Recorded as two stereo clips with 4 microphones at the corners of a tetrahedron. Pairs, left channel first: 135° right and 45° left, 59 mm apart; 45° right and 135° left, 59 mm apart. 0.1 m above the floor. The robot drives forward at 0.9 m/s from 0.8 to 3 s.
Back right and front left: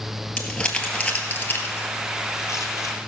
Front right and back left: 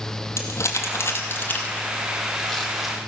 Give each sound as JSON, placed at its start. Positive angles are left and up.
{"t": 0.4, "sound": "crumpling", "azimuth_deg": -65, "distance_m": 1.6}